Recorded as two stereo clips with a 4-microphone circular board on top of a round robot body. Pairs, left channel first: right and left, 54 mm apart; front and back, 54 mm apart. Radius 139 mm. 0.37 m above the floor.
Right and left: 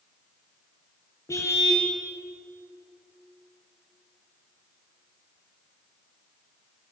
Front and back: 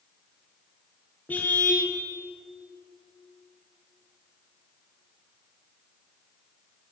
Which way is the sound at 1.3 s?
60° right.